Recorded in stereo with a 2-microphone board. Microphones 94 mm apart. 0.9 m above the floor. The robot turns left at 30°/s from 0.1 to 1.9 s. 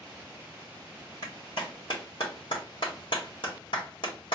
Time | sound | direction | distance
1.2 | a clap | 45° left (ahead or behind) | 1.6 m